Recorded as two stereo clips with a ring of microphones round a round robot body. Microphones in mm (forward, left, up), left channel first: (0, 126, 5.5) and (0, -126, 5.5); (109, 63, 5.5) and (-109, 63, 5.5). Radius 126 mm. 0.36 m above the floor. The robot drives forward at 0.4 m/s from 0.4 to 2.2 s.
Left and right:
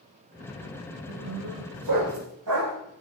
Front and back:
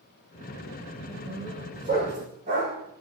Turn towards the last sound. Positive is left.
turn(degrees=-115)